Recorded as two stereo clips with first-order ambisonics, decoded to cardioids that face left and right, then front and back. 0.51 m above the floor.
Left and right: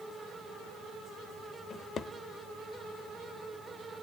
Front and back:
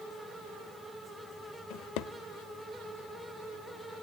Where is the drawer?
25° left, 0.8 m.